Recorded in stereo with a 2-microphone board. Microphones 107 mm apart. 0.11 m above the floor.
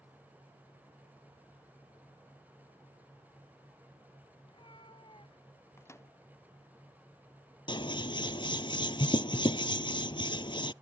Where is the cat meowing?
50° left (ahead or behind).